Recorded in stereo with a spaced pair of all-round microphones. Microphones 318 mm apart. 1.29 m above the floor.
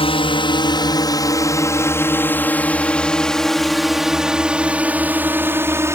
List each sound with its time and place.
0.0 s a drone: 15° left (ahead or behind); by 6.0 s 10° right (ahead or behind)